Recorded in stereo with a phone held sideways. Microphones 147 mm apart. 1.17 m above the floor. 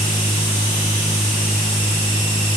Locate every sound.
0.0 s a machine running: 20° left (ahead or behind), 6.5 m